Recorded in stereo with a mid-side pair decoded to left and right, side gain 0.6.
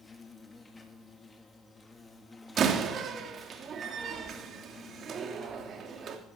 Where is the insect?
20° left, 2.5 m.